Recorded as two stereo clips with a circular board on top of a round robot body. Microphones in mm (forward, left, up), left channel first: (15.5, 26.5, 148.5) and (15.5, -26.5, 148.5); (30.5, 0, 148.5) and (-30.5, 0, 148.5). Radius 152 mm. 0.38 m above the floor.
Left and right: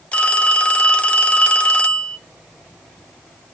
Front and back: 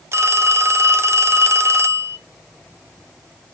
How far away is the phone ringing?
About 1.1 m.